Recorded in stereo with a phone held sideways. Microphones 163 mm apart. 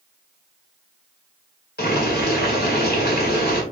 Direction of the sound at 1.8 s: 80° left.